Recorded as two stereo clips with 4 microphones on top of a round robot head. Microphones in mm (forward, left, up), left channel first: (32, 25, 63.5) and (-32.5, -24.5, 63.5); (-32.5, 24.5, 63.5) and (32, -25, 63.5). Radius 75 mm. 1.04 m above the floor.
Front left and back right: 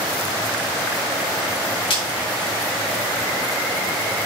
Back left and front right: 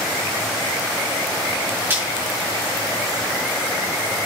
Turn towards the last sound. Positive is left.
turn(degrees=25)